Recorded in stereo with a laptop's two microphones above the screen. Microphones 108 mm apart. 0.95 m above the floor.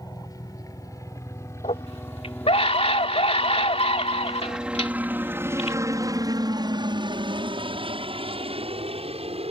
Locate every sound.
0.0 s a helicopter: 35° left (ahead or behind); by 9.5 s 65° right (ahead or behind)
1.6 s a scream: 70° left (ahead or behind)